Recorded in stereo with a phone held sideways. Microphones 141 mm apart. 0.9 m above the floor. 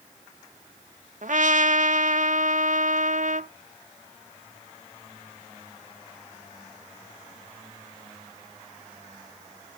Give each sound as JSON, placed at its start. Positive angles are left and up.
{"t": 1.2, "sound": "a trumpet", "side_deg": -65, "distance_m": 0.6}